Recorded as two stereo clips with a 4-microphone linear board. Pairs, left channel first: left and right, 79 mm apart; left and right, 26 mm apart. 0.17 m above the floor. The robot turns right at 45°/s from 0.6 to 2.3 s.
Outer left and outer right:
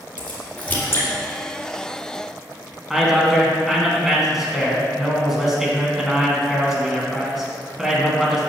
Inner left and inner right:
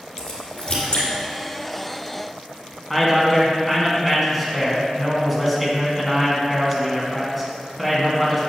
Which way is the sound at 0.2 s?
15° left (ahead or behind).